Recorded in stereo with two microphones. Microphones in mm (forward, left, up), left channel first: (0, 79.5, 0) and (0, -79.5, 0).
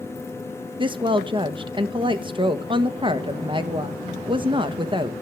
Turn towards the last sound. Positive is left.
turn(degrees=-30)  # may be behind; listen again after turning